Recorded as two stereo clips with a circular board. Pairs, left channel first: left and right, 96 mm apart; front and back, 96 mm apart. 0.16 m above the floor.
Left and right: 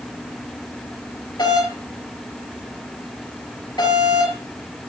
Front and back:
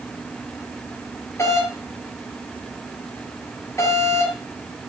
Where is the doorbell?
55° left, 4.5 m.